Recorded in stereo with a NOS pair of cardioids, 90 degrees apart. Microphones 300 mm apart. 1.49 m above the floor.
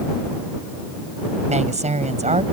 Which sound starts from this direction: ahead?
A woman speaking, at 1.5 s.